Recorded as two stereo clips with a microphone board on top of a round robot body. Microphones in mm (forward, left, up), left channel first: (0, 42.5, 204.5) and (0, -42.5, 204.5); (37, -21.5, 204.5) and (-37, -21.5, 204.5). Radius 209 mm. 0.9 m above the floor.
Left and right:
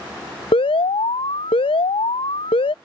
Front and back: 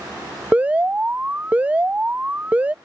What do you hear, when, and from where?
0.5 s an alarm: 110° left